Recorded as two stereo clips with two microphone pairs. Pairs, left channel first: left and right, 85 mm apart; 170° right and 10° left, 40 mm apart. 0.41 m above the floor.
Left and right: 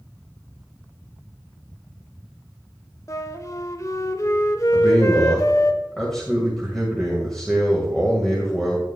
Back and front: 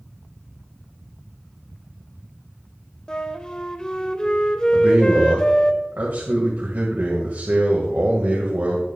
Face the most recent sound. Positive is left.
turn(degrees=5)